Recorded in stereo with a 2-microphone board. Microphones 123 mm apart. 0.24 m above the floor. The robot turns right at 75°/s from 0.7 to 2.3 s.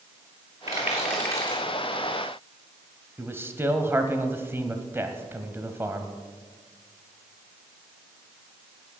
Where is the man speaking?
20° right (ahead or behind), 1.2 m.